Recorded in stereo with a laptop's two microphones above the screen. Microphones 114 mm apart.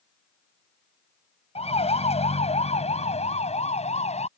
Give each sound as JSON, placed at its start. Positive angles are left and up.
{"t": 1.6, "sound": "a siren", "side_deg": 65}